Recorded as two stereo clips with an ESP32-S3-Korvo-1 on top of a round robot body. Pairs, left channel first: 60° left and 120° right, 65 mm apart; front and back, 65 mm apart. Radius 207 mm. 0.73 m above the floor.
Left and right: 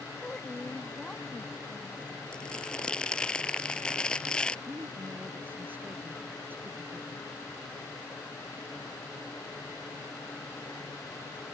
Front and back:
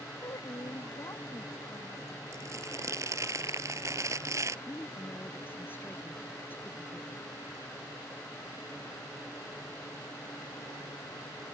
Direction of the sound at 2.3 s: 135° left.